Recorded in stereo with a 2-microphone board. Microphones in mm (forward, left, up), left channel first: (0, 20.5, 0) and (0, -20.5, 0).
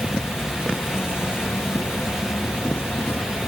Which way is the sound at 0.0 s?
65° left (ahead or behind).